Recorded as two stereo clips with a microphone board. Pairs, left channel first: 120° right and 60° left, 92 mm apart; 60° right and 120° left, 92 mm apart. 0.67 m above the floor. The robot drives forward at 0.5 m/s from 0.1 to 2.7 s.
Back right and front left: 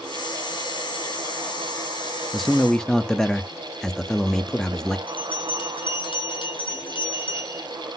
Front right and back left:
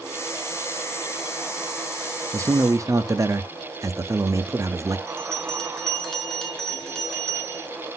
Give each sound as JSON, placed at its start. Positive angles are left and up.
{"t": 2.3, "sound": "a man speaking", "azimuth_deg": 150, "distance_m": 0.7}
{"t": 5.1, "sound": "a bell", "azimuth_deg": -145, "distance_m": 2.0}